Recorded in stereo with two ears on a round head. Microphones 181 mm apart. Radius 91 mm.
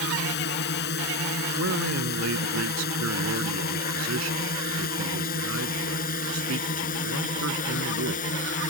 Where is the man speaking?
75° right (ahead or behind).